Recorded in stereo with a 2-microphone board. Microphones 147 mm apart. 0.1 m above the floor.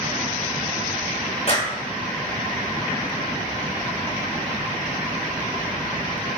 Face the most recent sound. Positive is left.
turn(degrees=45)  # may be behind; listen again after turning